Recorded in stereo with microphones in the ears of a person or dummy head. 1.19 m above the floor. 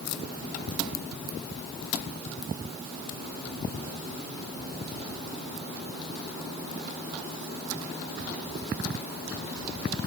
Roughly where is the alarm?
I don't hear an alarm.